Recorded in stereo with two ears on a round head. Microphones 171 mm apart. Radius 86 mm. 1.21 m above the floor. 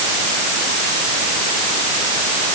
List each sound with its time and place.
Only background noise.